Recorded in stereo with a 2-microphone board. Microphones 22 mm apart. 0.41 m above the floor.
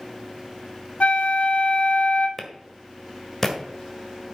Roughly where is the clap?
Centre.